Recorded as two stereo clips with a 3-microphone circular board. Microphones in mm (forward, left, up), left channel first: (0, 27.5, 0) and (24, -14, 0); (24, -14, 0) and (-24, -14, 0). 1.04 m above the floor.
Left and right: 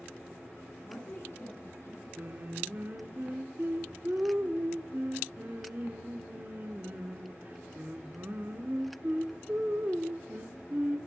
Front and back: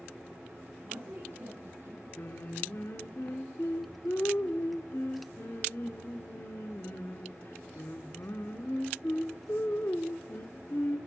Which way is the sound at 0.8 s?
155° left.